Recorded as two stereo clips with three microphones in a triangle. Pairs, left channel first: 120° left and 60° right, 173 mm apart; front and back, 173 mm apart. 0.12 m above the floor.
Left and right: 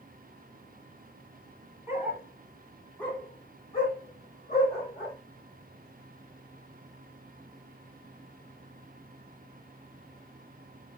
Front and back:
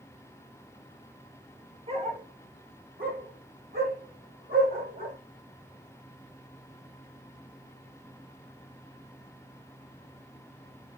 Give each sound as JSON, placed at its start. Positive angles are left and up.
{"t": 1.9, "sound": "a dog barking", "azimuth_deg": -135, "distance_m": 1.0}